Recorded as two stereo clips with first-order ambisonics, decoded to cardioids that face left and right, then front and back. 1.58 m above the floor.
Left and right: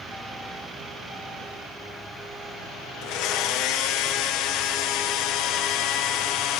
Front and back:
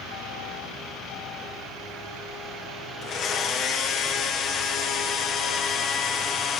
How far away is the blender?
About 1.1 m.